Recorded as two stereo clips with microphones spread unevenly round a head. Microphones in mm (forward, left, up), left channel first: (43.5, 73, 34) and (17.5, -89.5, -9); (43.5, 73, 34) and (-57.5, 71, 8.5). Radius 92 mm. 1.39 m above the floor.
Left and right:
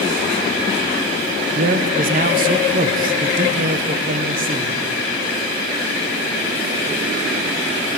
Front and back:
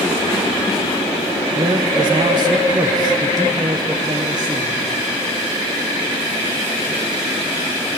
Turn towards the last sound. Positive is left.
turn(degrees=-130)